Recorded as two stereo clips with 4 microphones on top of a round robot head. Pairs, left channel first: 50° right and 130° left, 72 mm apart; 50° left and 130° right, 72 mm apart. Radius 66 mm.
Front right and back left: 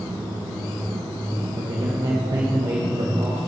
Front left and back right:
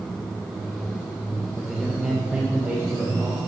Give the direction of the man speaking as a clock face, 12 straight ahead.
7 o'clock.